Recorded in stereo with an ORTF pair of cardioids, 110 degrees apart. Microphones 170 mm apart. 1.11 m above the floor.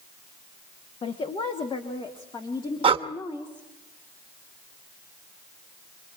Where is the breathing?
30° right, 1.2 m.